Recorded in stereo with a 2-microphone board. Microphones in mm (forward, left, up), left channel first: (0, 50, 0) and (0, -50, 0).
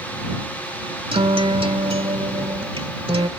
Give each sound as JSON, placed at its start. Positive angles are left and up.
{"t": 1.1, "sound": "a guitar", "side_deg": -80}